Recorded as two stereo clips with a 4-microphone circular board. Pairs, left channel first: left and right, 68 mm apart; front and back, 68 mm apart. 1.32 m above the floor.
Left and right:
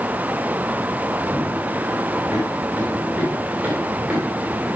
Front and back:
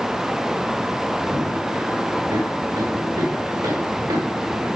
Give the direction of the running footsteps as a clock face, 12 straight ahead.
5 o'clock.